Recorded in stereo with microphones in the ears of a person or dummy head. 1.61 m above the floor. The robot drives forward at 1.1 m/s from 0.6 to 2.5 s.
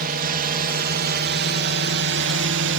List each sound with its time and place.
0.0 s a drone: 45° right (ahead or behind); by 2.8 s 60° right (ahead or behind)